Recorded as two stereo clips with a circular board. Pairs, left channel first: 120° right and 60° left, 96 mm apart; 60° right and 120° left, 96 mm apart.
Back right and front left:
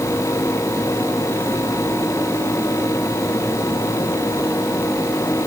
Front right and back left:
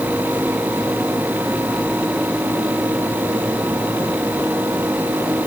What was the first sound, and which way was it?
Only background noise.